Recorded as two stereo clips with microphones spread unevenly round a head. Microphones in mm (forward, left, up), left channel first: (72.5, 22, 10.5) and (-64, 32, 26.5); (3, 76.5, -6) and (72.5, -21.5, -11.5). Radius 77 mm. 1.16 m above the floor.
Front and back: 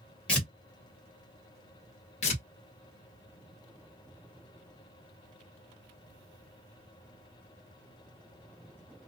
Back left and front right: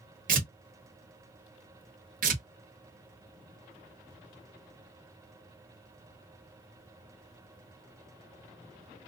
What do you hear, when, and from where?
0.3 s tearing paper: 85° right, 1.2 m
2.2 s tearing paper: 50° right, 1.1 m